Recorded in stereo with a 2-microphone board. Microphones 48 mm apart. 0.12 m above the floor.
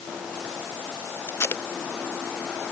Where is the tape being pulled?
65° left (ahead or behind).